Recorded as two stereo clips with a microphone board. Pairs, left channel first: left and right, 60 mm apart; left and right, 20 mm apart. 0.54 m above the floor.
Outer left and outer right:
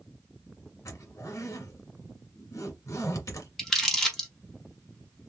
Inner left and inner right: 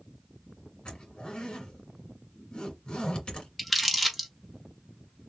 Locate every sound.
0.8 s a zipper: 60° left (ahead or behind), 1.8 m
3.6 s crumpling: 5° left (ahead or behind), 1.2 m